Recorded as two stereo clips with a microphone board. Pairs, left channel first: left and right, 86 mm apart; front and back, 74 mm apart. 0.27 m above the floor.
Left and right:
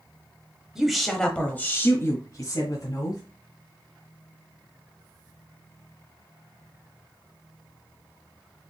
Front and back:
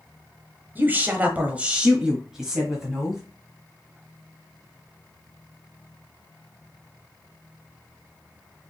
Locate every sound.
0.8 s a woman speaking: 165° right, 1.0 m; by 3.2 s 90° left, 1.5 m